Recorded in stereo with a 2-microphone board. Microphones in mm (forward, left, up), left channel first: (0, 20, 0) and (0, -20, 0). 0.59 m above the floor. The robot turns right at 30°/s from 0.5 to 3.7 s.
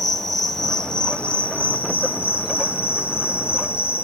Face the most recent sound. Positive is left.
turn(degrees=100)